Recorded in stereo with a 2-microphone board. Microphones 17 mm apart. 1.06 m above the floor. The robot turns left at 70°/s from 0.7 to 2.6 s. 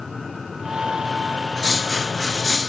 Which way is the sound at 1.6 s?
100° right.